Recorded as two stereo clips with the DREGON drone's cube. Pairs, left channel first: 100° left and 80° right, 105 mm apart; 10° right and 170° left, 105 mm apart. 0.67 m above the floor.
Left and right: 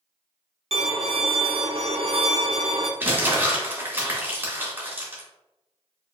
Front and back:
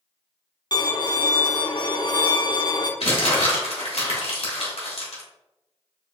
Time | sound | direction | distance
0.7 | a violin | 60° right | 0.6 m
3.0 | crumpling | 10° right | 1.9 m